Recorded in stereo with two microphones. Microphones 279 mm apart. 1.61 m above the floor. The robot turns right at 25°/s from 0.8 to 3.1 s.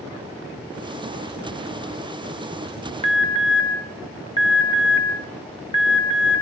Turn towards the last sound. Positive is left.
turn(degrees=20)  # may be behind; listen again after turning